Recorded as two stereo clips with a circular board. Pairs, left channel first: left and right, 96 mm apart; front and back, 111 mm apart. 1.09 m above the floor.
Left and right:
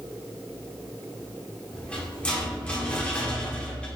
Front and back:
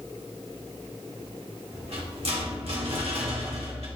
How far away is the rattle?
About 1.5 m.